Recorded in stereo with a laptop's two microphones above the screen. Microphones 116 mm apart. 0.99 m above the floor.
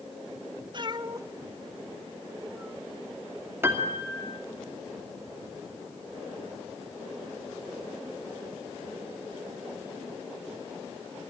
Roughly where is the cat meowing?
Right.